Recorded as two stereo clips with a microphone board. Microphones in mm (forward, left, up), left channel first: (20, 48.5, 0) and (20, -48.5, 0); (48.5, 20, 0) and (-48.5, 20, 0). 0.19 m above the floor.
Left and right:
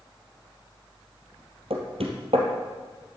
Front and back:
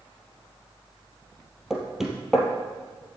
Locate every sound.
1.7 s knocking: 95° right, 3 m